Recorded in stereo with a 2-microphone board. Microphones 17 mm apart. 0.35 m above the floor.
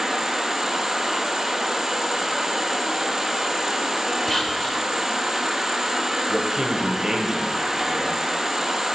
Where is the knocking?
I don't hear knocking.